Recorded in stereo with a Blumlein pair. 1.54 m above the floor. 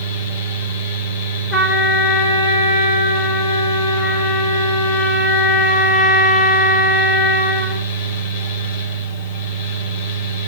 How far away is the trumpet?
About 5 m.